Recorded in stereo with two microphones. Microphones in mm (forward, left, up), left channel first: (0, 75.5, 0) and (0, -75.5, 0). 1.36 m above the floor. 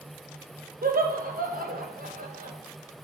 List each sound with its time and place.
0.8 s laughter: 70° right (ahead or behind), 1.1 m